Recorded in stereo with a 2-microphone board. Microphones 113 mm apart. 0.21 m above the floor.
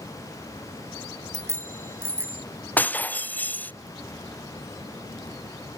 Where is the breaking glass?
15° left (ahead or behind).